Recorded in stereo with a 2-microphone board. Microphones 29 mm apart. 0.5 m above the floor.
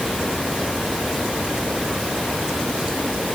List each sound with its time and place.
Only background noise.